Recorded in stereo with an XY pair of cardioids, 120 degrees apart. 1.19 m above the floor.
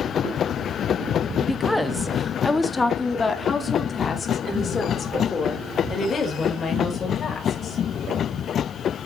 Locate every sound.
1.4 s a woman speaking: 5° right, 1.3 m; by 7.8 s 40° left, 5 m